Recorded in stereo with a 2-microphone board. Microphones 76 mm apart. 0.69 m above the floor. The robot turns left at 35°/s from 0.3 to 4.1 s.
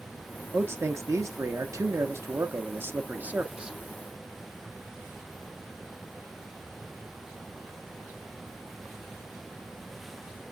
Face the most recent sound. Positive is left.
turn(degrees=-175)